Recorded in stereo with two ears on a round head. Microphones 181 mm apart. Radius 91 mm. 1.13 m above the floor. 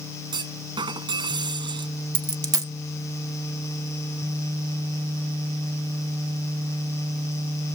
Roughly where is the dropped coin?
Centre.